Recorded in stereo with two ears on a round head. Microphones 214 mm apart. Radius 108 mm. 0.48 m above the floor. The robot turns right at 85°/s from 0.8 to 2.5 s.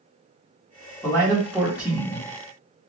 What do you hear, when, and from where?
1.0 s a man speaking: 15° left (ahead or behind), 1.0 m; by 2.3 s 15° right (ahead or behind), 1.0 m